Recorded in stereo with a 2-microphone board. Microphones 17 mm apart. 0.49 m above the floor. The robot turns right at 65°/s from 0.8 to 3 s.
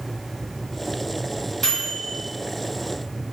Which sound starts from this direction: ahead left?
A microwave, at 1.6 s.